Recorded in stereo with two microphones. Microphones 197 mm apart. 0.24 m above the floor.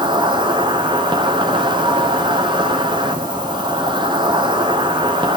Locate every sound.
0.0 s an insect: 25° right (ahead or behind), 1.2 m